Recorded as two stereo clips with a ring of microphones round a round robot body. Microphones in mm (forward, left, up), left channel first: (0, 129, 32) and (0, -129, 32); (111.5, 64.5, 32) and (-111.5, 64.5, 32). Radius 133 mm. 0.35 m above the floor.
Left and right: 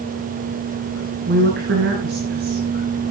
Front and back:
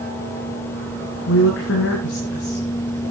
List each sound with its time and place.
1.3 s a woman speaking: 40° right, 3.5 m; by 3.1 s 50° right, 6 m